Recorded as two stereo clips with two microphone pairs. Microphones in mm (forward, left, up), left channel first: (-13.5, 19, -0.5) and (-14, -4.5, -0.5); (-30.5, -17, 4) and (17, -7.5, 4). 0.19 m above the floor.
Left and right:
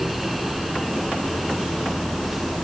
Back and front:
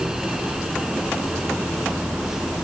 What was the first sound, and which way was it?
Only background noise.